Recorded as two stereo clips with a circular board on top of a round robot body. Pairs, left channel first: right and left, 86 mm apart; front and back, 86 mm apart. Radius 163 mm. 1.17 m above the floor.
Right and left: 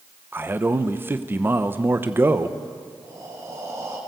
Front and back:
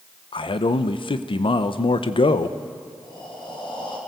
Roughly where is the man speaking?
Ahead left.